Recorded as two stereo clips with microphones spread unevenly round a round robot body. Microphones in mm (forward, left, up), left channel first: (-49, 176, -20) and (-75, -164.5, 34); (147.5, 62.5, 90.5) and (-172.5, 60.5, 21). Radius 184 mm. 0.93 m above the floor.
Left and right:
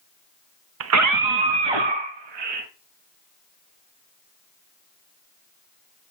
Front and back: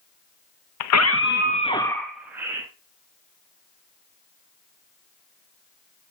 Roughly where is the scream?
Ahead right.